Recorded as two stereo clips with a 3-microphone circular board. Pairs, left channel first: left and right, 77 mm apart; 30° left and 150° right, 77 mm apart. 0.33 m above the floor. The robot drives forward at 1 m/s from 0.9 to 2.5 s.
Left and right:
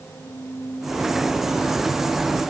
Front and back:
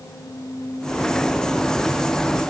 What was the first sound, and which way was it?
Only background noise.